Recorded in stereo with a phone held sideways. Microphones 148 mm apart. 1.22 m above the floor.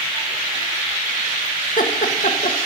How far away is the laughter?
About 1.7 m.